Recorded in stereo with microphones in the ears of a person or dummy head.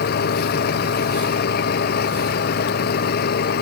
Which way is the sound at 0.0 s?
50° left (ahead or behind).